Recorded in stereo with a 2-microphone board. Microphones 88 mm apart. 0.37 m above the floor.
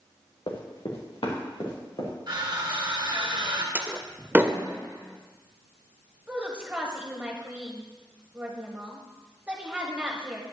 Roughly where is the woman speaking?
Centre.